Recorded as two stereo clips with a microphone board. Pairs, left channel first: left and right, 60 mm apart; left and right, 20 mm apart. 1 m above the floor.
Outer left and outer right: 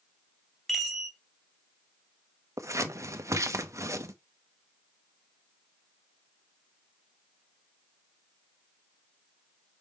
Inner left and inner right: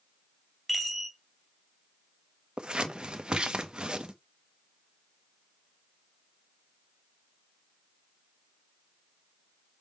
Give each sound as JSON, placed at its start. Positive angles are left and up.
{"t": 0.7, "sound": "a chime", "side_deg": 0, "distance_m": 2.0}
{"t": 2.6, "sound": "scissors", "side_deg": -55, "distance_m": 0.9}